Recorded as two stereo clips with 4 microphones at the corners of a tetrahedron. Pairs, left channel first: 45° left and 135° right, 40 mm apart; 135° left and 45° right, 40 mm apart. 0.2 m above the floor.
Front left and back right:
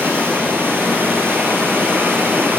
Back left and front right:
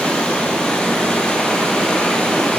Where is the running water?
155° right, 1.1 m.